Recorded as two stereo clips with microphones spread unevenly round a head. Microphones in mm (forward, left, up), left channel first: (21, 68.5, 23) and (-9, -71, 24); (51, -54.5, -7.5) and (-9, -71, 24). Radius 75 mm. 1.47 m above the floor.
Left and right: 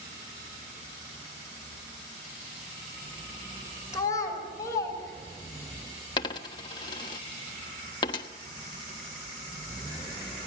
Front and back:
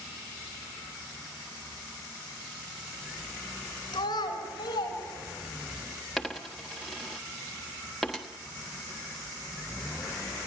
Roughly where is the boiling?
No boiling in this recording.